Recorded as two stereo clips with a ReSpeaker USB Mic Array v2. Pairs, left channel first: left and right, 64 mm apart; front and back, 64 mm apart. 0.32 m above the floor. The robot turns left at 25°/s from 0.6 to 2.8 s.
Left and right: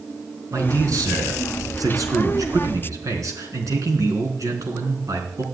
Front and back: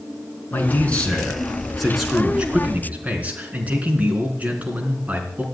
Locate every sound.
0.5 s a man speaking: 60° right, 3.5 m; by 5.4 s 115° right, 3.5 m